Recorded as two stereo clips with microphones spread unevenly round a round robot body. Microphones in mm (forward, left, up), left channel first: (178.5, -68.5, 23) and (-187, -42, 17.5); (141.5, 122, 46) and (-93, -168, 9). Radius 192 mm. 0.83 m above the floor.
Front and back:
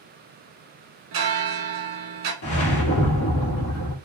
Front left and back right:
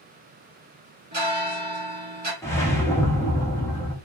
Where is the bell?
170° left, 1.5 m.